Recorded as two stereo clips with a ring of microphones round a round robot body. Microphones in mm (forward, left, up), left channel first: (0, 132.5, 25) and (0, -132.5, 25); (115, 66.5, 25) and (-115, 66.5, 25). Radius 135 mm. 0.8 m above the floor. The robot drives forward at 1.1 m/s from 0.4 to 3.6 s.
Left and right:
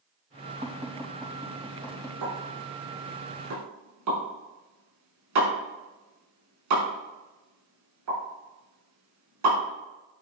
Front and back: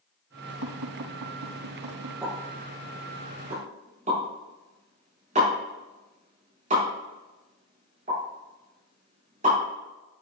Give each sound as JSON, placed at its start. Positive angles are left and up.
{"t": 0.6, "sound": "tapping", "azimuth_deg": -155, "distance_m": 2.5}
{"t": 2.2, "sound": "a pop", "azimuth_deg": -100, "distance_m": 5.0}